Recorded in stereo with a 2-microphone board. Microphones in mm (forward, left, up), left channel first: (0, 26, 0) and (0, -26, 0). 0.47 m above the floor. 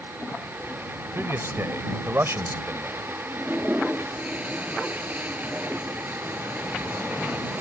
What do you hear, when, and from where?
1.1 s a man speaking: 55° right (ahead or behind)
3.3 s a toilet flushing: 30° right (ahead or behind)